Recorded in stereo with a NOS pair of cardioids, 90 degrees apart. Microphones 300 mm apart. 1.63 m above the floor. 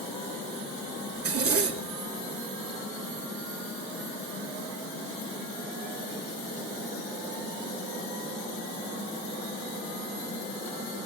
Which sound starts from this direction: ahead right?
A zipper, at 1.1 s.